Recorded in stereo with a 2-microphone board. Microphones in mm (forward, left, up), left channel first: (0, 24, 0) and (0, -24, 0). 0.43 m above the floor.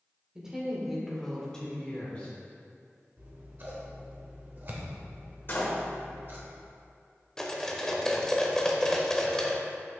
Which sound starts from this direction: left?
A door slam, at 5.5 s.